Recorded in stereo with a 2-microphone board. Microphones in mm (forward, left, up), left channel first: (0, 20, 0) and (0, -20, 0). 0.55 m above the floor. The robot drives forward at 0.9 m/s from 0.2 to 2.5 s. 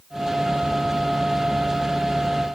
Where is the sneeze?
No sneeze in this recording.